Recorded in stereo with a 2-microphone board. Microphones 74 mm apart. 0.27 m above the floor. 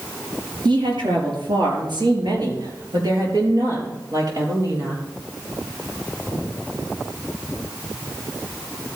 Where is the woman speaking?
75° right (ahead or behind), 4.5 m; by 5.0 s 50° right (ahead or behind), 5 m.